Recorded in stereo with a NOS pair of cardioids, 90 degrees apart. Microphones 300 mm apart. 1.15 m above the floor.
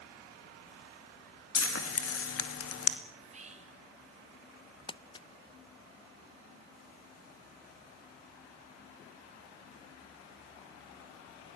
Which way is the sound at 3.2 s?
25° right.